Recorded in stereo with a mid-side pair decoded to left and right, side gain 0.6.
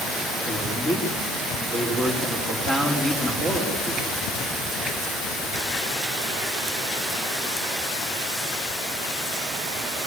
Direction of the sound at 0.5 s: 25° left.